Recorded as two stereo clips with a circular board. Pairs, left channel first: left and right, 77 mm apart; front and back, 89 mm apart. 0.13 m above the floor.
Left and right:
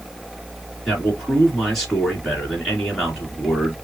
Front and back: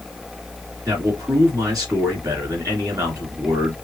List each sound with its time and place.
0.8 s a man speaking: 175° left, 1.6 m